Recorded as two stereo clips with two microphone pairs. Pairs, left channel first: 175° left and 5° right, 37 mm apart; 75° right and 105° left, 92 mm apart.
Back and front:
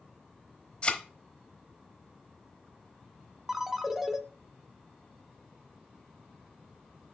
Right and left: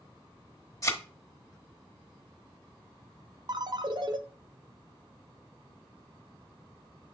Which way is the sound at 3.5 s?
70° left.